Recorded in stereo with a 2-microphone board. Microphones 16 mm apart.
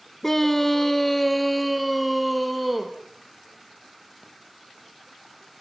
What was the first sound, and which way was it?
A scream, 20° left (ahead or behind).